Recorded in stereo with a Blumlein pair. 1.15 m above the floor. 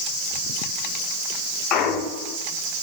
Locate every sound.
1.7 s a clunk: 35° left, 2 m